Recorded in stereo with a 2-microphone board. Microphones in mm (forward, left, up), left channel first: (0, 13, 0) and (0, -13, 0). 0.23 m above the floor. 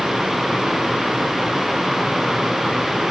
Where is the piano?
I don't hear a piano.